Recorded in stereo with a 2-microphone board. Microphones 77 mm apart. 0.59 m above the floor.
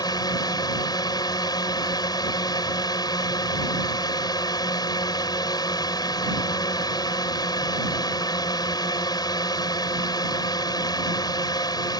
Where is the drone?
60° left (ahead or behind).